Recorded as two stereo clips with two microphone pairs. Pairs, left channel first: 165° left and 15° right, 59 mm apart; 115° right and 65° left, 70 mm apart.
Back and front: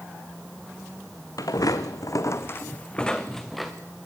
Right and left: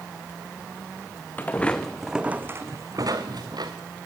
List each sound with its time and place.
1.4 s footsteps: straight behind, 1.9 m; by 3.7 s 75° left, 2.5 m